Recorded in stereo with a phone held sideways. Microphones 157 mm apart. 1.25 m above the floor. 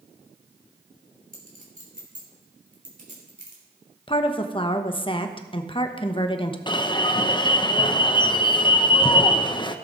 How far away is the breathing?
No breathing in this recording.